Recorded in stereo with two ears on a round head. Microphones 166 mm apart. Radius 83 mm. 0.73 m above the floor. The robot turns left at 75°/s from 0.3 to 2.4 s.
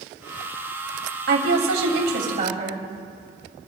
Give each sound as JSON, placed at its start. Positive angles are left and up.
{"t": 1.3, "sound": "a woman speaking", "azimuth_deg": -60, "distance_m": 3.0}